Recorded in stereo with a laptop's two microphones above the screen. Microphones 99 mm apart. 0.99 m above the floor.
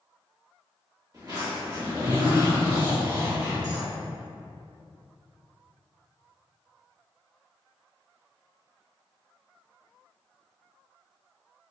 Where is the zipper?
45° right (ahead or behind), 1.8 m.